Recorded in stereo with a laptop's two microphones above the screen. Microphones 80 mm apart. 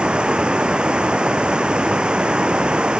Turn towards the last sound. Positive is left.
turn(degrees=-10)  # may be behind; listen again after turning